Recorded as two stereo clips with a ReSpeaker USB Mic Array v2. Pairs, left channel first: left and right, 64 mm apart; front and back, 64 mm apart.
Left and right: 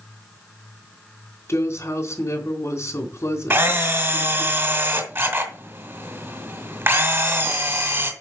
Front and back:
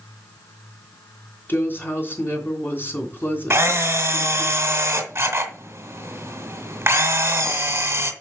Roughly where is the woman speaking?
Ahead left.